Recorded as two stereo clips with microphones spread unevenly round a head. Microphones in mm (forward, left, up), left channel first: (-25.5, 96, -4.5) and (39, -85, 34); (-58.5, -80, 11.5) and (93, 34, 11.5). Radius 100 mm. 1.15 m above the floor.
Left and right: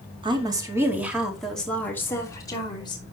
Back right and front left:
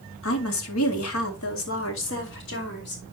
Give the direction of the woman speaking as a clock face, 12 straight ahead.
5 o'clock.